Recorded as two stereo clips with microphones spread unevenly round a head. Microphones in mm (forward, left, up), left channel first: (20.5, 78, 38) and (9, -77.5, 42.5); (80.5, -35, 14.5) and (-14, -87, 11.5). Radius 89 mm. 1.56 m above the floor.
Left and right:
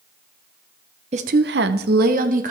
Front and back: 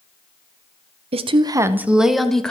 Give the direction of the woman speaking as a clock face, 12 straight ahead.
5 o'clock.